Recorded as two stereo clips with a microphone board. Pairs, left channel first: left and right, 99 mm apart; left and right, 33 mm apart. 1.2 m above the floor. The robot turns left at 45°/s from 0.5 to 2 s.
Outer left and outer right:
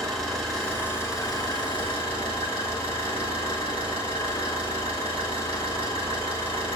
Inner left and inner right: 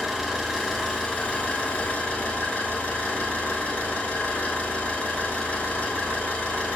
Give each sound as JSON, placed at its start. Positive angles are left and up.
{"t": 0.0, "sound": "an engine running", "azimuth_deg": 175, "distance_m": 5.0}